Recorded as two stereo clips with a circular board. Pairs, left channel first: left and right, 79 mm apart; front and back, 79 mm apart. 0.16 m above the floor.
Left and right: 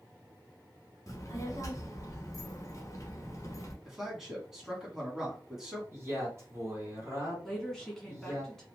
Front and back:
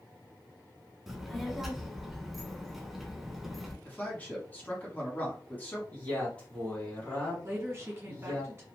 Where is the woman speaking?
170° left, 1.4 m.